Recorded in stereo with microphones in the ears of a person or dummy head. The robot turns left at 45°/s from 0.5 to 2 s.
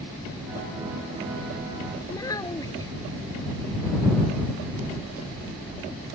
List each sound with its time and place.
2.1 s a child speaking: 15° left (ahead or behind)